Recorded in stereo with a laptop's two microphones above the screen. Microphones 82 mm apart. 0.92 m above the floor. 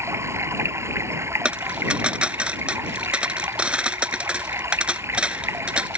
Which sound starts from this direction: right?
Running water, at 0.0 s.